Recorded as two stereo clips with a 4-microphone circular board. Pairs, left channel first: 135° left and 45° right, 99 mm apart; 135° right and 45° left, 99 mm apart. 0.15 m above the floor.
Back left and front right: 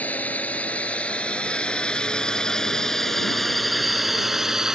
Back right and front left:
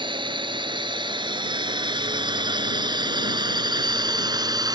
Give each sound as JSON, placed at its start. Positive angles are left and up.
{"t": 0.0, "sound": "a drone", "azimuth_deg": 65}